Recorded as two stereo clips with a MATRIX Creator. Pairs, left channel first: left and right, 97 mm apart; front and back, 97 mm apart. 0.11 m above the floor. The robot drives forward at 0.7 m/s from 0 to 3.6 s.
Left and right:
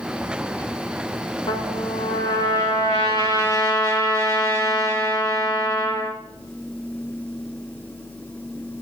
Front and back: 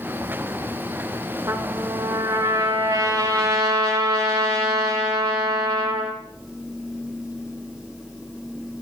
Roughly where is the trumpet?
Behind left.